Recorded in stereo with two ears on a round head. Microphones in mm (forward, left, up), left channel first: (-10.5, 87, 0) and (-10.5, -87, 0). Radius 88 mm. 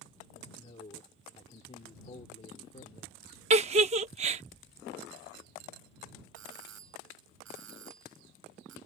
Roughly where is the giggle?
Right.